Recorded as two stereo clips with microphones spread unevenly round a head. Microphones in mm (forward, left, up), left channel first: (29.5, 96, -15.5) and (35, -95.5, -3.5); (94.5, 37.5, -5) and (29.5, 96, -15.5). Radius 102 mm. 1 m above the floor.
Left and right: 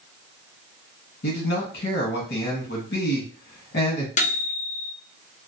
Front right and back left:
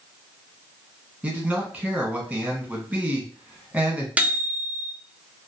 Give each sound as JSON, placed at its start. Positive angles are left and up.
{"t": 1.2, "sound": "a man speaking", "azimuth_deg": 70, "distance_m": 1.5}
{"t": 4.2, "sound": "a microwave", "azimuth_deg": 80, "distance_m": 0.5}